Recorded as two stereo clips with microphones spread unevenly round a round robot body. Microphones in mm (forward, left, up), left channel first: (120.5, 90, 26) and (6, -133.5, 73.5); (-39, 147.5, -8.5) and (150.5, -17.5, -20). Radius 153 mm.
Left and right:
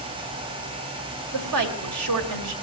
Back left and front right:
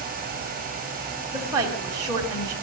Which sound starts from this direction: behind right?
A woman speaking, at 1.3 s.